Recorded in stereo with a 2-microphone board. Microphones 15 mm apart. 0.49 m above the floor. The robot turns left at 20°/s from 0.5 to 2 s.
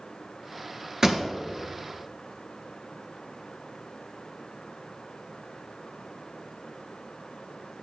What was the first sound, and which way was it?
A pop, 25° right (ahead or behind).